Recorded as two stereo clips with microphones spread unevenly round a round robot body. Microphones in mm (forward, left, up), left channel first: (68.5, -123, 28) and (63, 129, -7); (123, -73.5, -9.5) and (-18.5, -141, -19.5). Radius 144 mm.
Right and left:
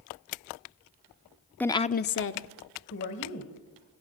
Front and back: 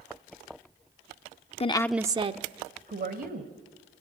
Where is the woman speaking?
5° left, 0.8 m; by 3.5 s 140° right, 2.5 m.